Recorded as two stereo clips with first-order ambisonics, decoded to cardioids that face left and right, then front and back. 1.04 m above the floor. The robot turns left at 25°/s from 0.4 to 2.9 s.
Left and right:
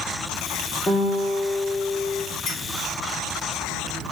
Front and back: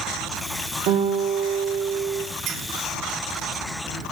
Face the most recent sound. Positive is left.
turn(degrees=130)